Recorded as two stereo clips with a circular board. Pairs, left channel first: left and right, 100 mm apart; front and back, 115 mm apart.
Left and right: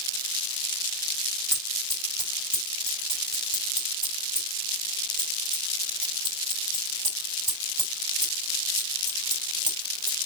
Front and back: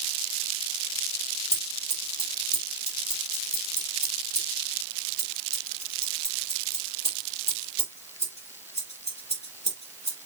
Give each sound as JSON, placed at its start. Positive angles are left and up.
{"t": 1.5, "sound": "scissors", "azimuth_deg": 5, "distance_m": 8.5}